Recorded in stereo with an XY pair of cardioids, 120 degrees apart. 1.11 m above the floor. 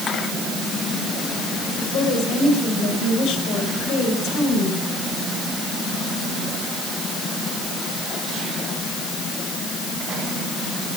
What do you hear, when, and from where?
1.8 s a woman speaking: 70° left, 4 m